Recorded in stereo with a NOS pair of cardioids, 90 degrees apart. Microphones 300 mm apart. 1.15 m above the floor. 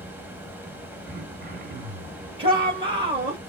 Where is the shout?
20° right, 1.5 m.